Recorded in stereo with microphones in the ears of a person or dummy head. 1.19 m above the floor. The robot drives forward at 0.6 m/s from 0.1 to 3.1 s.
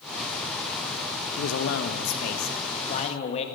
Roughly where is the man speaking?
Left.